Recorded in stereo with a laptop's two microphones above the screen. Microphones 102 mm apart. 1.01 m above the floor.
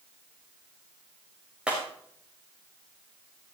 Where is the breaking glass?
10° right (ahead or behind), 5.5 m.